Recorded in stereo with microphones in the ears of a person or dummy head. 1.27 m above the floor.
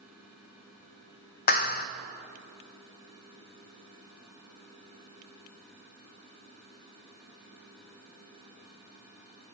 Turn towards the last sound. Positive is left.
turn(degrees=50)  # may be behind; listen again after turning